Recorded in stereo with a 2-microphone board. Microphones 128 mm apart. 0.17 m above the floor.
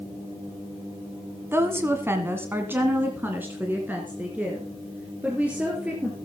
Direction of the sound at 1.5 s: 20° right (ahead or behind).